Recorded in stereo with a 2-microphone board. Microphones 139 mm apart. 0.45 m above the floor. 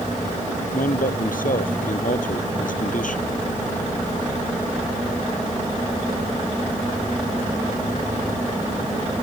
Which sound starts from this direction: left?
A man speaking, at 0.7 s.